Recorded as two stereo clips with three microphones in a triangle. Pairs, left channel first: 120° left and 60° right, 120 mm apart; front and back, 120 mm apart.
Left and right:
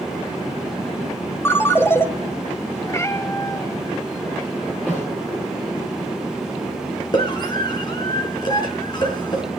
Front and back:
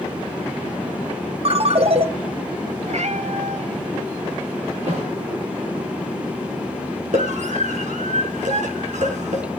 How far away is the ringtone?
About 1.5 m.